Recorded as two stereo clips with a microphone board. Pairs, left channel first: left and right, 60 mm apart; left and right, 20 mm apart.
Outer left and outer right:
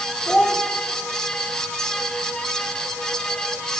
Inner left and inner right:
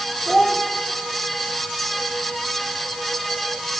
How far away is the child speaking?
About 0.9 m.